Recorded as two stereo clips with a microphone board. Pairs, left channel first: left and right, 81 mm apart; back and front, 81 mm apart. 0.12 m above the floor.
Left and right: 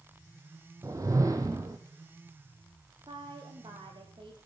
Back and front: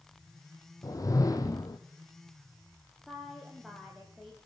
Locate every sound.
0.8 s a whoosh: 135° right, 2.0 m
3.1 s a woman speaking: 90° right, 5.5 m